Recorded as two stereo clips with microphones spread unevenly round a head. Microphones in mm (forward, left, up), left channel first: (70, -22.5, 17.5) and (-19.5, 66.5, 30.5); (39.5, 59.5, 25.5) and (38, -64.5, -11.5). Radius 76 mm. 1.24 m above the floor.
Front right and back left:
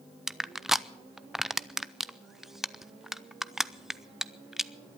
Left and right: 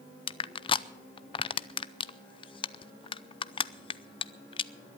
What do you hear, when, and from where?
0.3 s crushing: 40° left, 0.6 m